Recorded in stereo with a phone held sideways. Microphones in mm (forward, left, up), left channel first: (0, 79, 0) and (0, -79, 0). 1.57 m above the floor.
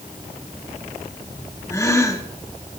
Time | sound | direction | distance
1.7 | a gasp | 20° left (ahead or behind) | 1.3 m